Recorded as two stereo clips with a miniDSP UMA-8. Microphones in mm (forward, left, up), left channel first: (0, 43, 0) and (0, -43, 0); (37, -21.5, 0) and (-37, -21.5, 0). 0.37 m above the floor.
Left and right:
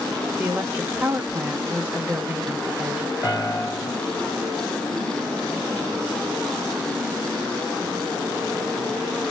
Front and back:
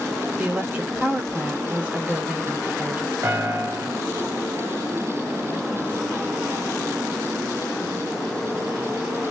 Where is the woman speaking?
135° right, 0.8 m.